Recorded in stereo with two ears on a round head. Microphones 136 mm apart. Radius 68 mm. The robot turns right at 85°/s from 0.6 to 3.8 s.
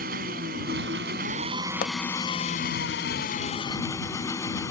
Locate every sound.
0.0 s an engine running: 115° right; by 4.7 s 160° left
1.8 s a pop: 60° left (ahead or behind); by 2.0 s 55° left (ahead or behind)